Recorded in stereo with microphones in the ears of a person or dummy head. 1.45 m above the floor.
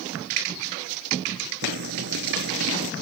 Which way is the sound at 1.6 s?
65° right (ahead or behind).